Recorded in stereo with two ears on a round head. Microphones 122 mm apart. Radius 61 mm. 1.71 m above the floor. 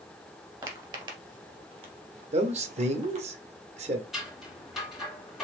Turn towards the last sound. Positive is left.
turn(degrees=0)  # may be behind; listen again after turning